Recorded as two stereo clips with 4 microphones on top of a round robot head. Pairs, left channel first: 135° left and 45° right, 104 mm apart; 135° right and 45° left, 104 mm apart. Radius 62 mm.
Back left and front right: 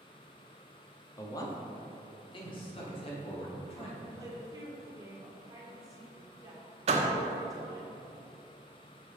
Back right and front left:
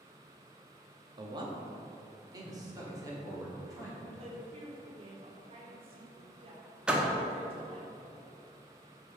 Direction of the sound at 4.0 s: 15° left.